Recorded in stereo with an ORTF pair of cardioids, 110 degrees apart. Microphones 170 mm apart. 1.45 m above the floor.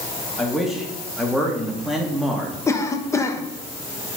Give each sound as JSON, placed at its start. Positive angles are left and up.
{"t": 0.4, "sound": "a man speaking", "azimuth_deg": 0, "distance_m": 2.0}
{"t": 2.7, "sound": "a cough", "azimuth_deg": 15, "distance_m": 1.3}